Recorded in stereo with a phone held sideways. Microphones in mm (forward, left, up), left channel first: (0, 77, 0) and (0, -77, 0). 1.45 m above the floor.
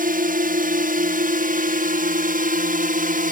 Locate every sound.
0.0 s a drone: 60° right (ahead or behind)